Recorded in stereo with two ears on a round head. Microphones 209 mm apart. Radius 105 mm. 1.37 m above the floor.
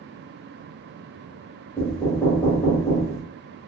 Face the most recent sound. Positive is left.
turn(degrees=5)  # may be behind; listen again after turning